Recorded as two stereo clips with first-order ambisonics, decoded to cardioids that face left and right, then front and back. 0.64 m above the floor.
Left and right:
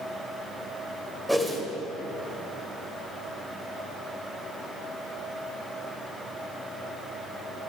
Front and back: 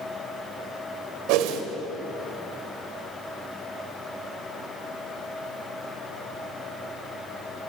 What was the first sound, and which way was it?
A whoosh, straight behind.